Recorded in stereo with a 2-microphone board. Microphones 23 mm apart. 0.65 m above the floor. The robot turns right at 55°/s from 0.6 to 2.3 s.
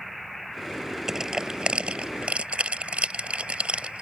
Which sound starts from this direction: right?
Crushing, at 1.1 s.